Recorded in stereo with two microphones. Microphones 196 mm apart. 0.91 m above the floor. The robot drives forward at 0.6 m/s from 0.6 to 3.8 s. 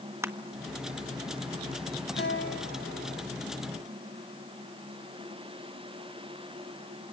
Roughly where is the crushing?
Centre.